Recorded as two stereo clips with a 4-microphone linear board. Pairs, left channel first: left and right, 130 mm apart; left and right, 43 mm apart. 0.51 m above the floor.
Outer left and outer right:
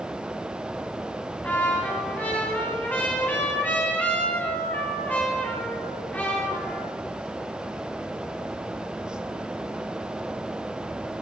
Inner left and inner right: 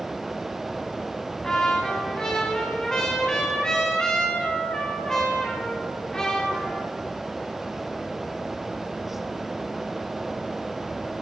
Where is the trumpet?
15° left (ahead or behind), 4.5 m.